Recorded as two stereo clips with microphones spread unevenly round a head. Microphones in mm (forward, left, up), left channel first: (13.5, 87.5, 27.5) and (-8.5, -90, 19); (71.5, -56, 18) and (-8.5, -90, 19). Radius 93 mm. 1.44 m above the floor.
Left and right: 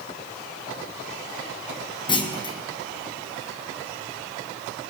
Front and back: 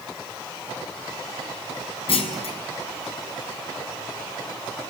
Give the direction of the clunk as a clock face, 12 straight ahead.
11 o'clock.